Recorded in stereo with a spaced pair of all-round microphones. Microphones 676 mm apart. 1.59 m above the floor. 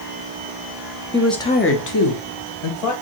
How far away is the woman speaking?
About 0.8 m.